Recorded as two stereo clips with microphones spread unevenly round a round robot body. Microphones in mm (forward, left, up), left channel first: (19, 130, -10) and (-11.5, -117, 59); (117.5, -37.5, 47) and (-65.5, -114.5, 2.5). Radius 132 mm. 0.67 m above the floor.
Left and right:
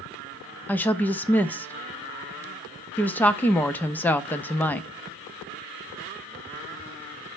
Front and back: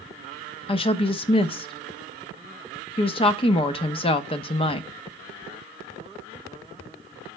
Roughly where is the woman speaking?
Left.